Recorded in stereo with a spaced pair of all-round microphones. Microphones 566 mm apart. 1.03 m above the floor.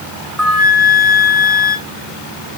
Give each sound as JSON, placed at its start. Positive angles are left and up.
{"t": 0.4, "sound": "a flute", "side_deg": -25, "distance_m": 1.3}